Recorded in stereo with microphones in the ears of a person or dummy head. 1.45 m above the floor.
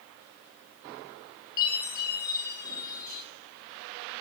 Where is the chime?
20° left (ahead or behind), 1.2 m.